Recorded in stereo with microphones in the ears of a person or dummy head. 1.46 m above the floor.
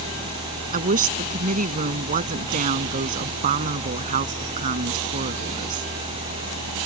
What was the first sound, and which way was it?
A woman speaking, 40° right (ahead or behind).